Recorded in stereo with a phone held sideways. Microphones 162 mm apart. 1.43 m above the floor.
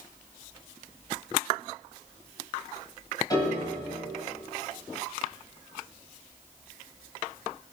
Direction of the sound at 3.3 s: 25° left (ahead or behind).